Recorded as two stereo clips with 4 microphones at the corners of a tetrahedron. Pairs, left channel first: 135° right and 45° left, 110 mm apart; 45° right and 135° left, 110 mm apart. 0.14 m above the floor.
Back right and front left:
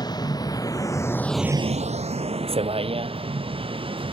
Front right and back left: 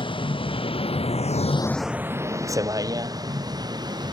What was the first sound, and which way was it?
A vehicle, 85° right.